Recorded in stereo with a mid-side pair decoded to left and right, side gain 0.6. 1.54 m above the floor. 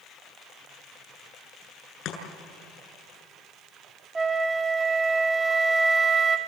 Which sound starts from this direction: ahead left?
Chopping, at 2.0 s.